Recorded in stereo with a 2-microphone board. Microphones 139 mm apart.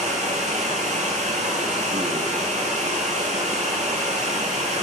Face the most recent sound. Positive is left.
turn(degrees=-60)  # may be behind; listen again after turning